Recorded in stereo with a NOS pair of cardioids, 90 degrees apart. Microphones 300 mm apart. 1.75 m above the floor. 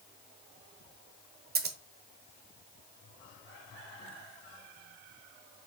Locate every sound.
1.6 s scissors: 35° right, 0.8 m